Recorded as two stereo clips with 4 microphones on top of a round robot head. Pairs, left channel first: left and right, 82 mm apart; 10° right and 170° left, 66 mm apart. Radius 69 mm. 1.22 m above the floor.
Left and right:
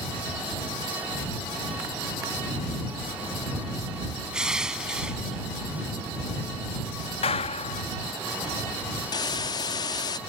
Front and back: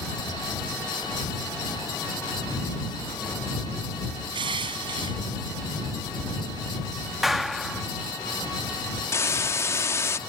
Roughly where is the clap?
Left.